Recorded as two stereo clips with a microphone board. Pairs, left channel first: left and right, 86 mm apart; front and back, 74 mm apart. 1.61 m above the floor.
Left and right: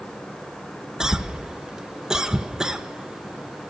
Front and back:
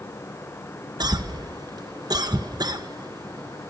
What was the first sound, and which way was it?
A cough, 170° right.